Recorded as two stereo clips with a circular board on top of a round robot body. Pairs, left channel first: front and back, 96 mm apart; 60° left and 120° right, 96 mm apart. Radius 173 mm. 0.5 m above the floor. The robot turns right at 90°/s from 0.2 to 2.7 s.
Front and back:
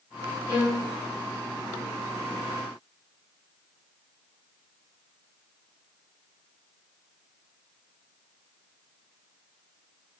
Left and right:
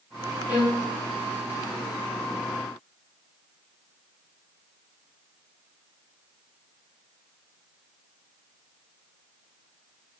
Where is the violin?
60° right, 1.6 m; by 0.9 s 25° right, 1.6 m.